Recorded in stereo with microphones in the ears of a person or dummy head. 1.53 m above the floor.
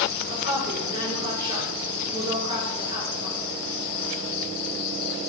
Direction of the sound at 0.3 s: 25° right (ahead or behind).